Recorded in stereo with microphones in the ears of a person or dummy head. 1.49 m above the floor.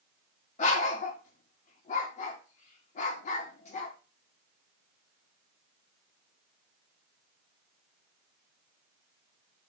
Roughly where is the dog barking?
Left.